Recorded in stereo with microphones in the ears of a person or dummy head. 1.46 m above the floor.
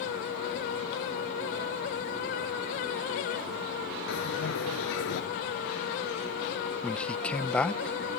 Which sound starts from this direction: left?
A bell, at 4.1 s.